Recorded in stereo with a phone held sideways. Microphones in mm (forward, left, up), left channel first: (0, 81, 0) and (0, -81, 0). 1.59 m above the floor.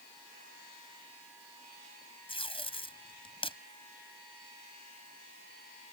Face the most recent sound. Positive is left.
turn(degrees=35)  # may be behind; listen again after turning